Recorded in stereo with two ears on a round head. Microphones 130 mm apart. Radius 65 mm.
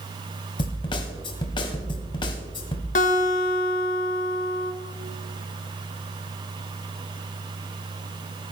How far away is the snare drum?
About 1.7 m.